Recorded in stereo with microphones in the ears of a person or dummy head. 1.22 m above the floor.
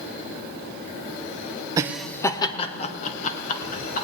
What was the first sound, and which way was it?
Laughter, 20° right (ahead or behind).